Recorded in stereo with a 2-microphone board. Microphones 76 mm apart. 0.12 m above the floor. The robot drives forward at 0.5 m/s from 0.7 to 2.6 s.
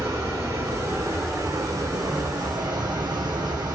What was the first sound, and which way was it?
Running water, 50° right (ahead or behind).